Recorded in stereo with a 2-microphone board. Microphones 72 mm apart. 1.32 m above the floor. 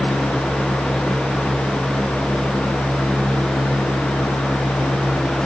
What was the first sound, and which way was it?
Only background noise.